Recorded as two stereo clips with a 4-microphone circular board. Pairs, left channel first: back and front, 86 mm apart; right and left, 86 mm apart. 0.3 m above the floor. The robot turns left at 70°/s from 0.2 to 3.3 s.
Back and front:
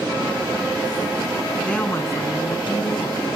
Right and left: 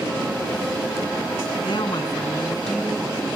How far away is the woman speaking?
About 2.5 m.